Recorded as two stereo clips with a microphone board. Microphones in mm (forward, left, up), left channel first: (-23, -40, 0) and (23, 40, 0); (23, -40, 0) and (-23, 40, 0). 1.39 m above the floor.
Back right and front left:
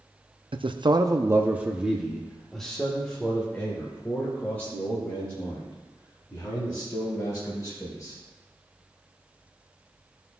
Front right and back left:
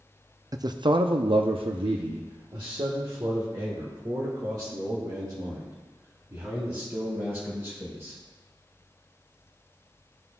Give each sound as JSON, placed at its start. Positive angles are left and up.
{"t": 0.5, "sound": "a man speaking", "azimuth_deg": 70, "distance_m": 0.6}